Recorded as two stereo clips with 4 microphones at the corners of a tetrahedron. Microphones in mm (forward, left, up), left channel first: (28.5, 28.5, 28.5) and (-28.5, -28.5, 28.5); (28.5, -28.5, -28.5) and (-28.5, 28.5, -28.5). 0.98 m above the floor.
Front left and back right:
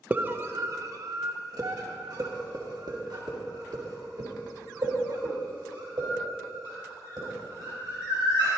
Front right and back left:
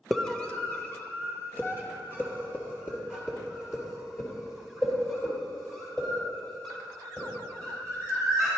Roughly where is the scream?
Behind right.